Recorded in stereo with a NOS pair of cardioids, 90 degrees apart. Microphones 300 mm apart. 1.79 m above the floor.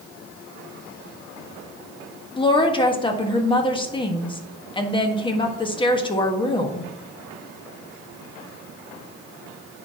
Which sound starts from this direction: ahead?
A woman speaking, at 2.4 s.